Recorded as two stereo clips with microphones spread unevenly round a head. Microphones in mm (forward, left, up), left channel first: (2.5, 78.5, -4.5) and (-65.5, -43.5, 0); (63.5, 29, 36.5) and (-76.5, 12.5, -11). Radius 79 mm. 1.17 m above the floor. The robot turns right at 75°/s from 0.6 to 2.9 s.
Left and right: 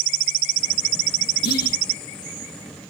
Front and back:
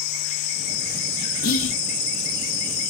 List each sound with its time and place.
1.4 s whispering: 35° left, 0.6 m; by 1.8 s 60° left, 0.6 m